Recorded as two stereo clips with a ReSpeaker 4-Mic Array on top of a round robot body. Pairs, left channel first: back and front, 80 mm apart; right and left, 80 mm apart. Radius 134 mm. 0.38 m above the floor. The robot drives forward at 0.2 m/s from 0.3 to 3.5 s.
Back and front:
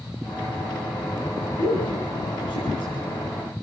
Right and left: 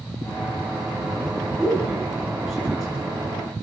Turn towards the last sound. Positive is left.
turn(degrees=180)